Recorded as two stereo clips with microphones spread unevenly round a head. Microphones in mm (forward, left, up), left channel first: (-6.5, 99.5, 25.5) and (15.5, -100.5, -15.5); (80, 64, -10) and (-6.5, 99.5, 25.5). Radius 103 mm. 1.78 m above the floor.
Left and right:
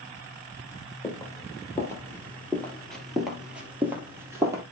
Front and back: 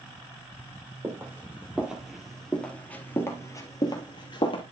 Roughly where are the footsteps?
Behind left.